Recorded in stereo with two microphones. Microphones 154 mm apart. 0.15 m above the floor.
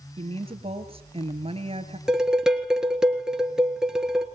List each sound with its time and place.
0.2 s a woman speaking: 40° right (ahead or behind), 2.5 m
2.1 s dishes clattering: 5° right (ahead or behind), 1.6 m